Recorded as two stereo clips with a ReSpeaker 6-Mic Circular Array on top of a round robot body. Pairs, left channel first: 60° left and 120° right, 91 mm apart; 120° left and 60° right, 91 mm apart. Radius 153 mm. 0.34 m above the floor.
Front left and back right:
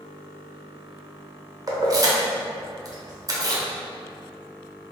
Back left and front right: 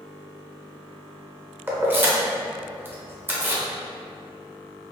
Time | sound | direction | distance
1.7 | keys jangling | 115° right | 0.7 m